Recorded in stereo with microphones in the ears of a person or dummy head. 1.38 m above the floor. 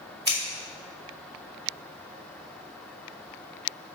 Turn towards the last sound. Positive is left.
turn(degrees=-30)  # may be behind; listen again after turning